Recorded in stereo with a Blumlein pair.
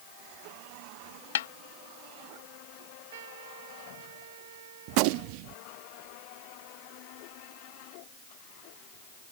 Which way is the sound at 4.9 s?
45° right.